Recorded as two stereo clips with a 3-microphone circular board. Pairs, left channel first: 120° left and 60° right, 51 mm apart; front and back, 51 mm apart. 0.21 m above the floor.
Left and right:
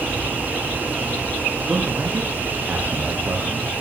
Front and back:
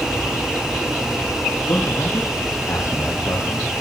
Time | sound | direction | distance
1.7 | a man speaking | straight ahead | 7.5 m